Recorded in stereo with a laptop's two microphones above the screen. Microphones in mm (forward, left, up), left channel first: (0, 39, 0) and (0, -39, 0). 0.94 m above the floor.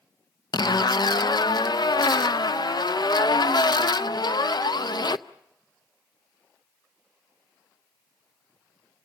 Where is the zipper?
65° left (ahead or behind), 0.6 m.